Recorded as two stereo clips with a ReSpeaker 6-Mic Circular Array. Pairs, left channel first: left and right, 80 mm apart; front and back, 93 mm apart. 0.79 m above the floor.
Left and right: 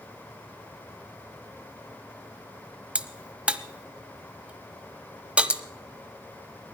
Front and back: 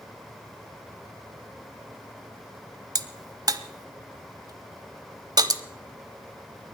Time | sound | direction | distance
3.0 | a crack | 160° right | 0.7 m